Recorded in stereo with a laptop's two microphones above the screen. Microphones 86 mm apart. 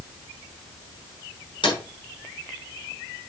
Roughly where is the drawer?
Left.